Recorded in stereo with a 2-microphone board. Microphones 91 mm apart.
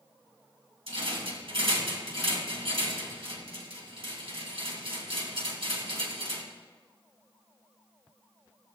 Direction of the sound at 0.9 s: 75° right (ahead or behind).